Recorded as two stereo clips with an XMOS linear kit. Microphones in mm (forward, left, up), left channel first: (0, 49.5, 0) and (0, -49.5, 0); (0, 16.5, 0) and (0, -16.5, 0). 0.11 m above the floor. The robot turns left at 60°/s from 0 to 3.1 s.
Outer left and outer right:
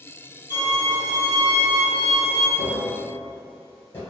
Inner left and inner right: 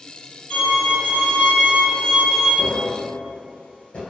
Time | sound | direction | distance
0.5 | a violin | 95° left | 1.6 m
2.6 | tapping | 45° left (ahead or behind) | 1.3 m